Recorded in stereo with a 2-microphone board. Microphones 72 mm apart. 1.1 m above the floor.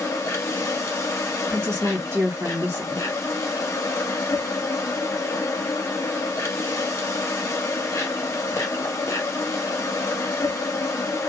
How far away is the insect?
About 1.1 m.